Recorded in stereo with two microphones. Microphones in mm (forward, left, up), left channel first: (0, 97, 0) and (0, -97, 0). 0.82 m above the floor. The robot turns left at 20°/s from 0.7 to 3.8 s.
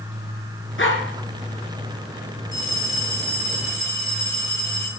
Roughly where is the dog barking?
Left.